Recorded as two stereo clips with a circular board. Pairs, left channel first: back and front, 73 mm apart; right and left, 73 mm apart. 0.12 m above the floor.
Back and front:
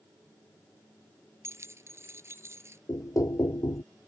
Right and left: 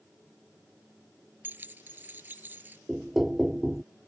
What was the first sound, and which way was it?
Keys jangling, 35° left.